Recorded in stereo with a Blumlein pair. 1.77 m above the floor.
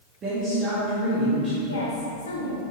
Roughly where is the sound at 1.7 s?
Ahead left.